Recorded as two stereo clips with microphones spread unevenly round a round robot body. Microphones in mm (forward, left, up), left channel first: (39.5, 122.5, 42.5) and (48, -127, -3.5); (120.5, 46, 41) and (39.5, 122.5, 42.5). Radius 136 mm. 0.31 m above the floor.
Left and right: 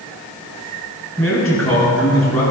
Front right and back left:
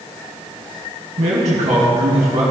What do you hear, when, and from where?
1.2 s a man speaking: 175° left, 3.5 m